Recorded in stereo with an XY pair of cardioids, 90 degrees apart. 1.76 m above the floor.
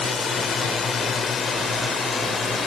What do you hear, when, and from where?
0.0 s a drone: 55° left